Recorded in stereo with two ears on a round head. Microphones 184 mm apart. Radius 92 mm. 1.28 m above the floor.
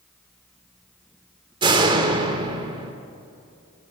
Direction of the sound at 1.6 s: 25° right (ahead or behind).